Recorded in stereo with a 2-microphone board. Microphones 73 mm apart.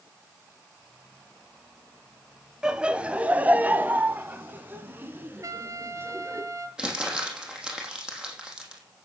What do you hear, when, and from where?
2.6 s laughter: 10° right (ahead or behind), 1.2 m; by 6.4 s 30° right (ahead or behind), 3.5 m
5.4 s a trumpet: 50° right (ahead or behind), 1.5 m
6.8 s crumpling: 10° right (ahead or behind), 4.5 m